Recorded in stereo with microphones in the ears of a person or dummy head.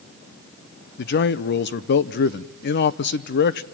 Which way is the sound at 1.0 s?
50° left (ahead or behind).